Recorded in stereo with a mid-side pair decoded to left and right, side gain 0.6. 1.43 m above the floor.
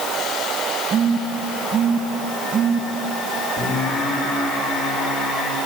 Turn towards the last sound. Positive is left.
turn(degrees=55)